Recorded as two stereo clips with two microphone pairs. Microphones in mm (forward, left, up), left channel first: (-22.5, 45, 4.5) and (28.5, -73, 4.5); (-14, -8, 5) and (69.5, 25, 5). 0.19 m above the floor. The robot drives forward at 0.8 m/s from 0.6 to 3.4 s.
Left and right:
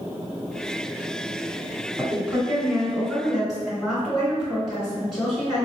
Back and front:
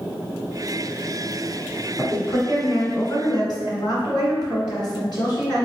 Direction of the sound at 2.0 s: 135° right.